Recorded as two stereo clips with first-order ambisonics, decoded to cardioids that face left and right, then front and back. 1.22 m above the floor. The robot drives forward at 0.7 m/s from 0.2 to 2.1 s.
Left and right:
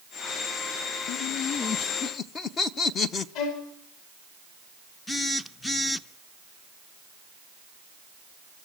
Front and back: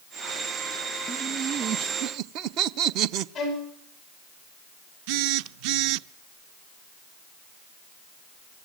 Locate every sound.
1.1 s laughter: 100° left, 0.6 m; by 3.2 s 150° left, 1.0 m
3.4 s a violin: 80° left, 9.5 m
5.1 s a phone buzzing: 170° left, 0.7 m